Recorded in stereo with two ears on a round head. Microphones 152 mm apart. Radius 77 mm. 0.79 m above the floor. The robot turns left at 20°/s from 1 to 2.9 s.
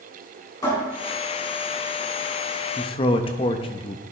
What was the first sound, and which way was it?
A cupboard door, 20° left (ahead or behind).